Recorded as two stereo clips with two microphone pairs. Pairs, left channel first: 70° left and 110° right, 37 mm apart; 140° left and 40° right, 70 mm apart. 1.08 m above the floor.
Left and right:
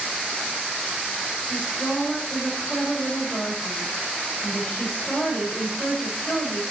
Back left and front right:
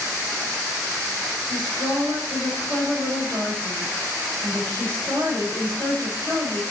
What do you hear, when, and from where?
1.5 s a woman speaking: 20° left, 4 m